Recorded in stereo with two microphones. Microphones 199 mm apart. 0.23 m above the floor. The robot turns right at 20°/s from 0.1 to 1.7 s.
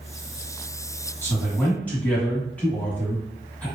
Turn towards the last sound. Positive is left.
turn(degrees=10)  # may be behind; listen again after turning